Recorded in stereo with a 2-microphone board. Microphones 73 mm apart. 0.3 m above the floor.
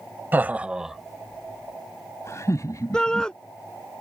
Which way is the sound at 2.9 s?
10° left (ahead or behind).